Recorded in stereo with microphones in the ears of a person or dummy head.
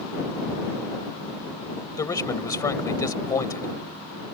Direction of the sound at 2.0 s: 20° left (ahead or behind).